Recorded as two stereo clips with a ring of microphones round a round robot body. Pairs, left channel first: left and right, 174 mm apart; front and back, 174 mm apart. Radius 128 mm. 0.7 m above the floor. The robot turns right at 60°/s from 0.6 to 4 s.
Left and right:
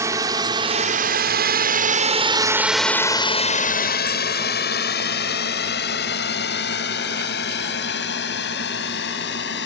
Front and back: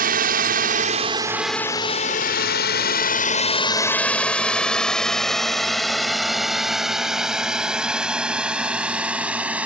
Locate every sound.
0.0 s a drone: 165° right; by 9.7 s 100° left